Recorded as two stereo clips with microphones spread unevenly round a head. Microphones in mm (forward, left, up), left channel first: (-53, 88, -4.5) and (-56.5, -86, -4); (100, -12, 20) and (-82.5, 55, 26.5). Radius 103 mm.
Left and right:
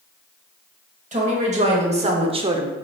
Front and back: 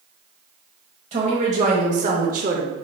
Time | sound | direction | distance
1.1 | a woman speaking | 140° right | 1.3 m